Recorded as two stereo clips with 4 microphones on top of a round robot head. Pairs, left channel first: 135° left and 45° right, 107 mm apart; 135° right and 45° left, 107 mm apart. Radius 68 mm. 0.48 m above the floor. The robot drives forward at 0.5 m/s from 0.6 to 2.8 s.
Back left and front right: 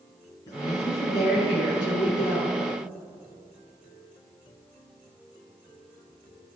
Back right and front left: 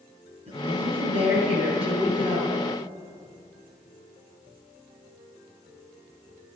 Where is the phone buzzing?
I don't hear a phone buzzing.